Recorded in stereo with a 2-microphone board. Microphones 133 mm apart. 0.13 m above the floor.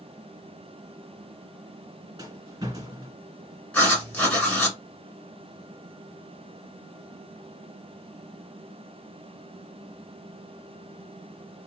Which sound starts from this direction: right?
A rattle, at 2.2 s.